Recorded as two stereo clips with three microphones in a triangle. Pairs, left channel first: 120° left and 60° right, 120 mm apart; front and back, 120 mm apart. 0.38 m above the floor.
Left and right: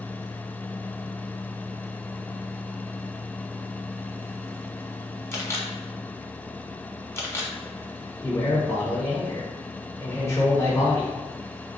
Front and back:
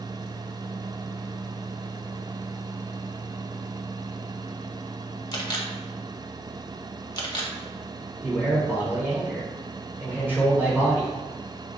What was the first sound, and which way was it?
A camera shutter, 55° left.